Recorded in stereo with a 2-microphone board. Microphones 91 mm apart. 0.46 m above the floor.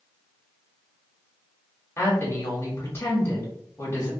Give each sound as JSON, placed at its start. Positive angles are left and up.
{"t": 2.0, "sound": "a woman speaking", "side_deg": 25, "distance_m": 0.9}